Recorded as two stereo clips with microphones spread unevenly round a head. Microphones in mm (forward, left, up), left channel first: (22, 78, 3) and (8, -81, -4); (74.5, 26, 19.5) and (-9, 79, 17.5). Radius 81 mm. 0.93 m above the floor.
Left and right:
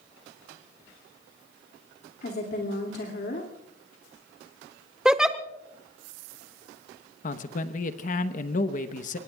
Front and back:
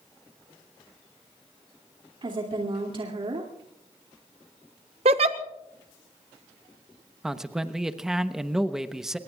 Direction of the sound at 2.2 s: 115° left.